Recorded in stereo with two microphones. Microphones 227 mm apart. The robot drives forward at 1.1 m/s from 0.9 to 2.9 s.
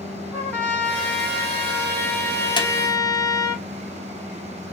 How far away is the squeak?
About 1.0 m.